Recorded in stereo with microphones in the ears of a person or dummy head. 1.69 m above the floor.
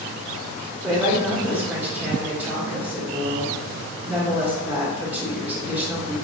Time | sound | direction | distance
0.8 | a woman speaking | 5° right (ahead or behind) | 1.4 m